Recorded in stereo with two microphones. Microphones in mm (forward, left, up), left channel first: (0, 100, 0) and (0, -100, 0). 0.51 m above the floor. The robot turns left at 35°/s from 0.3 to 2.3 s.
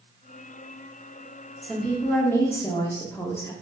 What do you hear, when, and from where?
1.6 s a woman speaking: 5° left (ahead or behind), 0.7 m; by 3.5 s 10° left (ahead or behind), 0.7 m